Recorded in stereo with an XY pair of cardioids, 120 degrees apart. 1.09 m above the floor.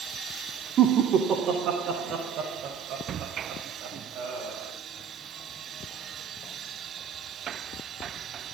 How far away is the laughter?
About 2.5 m.